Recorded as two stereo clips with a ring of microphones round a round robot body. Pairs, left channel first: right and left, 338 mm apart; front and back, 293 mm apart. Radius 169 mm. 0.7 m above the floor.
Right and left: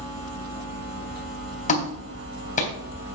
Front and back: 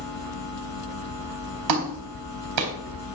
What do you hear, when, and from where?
1.7 s a clap: 160° right, 3.5 m